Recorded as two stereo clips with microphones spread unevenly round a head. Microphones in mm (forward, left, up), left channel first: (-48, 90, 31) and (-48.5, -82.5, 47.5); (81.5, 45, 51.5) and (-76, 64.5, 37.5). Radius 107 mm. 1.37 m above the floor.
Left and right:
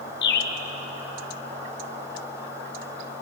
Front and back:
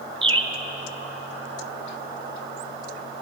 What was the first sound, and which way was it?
A bird, 115° left.